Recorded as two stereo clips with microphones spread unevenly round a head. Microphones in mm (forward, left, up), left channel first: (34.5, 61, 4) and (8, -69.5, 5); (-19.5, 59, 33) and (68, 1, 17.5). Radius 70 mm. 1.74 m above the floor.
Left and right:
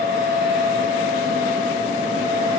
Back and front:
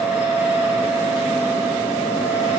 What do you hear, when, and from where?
0.0 s a fan: 40° left, 3.5 m